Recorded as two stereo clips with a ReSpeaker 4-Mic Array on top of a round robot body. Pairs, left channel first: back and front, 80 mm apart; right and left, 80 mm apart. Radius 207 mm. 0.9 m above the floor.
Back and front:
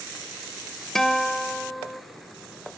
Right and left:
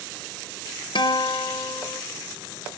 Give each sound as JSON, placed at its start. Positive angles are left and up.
{"t": 0.9, "sound": "a guitar", "azimuth_deg": -95, "distance_m": 0.8}